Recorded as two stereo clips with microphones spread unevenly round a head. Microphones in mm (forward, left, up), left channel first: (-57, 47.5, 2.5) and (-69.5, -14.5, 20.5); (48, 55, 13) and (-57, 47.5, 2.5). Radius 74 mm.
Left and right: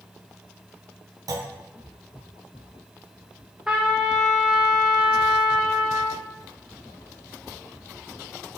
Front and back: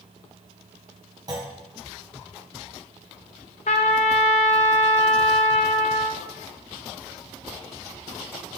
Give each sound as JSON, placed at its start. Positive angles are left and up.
{"t": 1.3, "sound": "a clunk", "azimuth_deg": -110, "distance_m": 1.0}
{"t": 3.7, "sound": "a trumpet", "azimuth_deg": -25, "distance_m": 0.6}